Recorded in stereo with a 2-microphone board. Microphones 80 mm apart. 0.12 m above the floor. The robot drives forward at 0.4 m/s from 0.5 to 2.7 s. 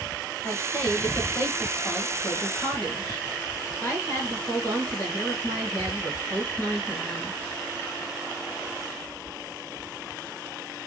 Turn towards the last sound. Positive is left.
turn(degrees=30)  # may be behind; listen again after turning